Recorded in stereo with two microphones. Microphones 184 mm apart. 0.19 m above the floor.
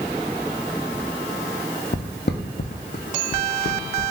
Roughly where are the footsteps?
Left.